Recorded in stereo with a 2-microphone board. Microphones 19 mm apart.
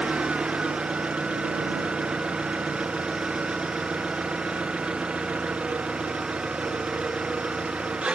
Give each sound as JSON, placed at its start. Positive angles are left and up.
{"t": 0.0, "sound": "an engine running", "side_deg": -80}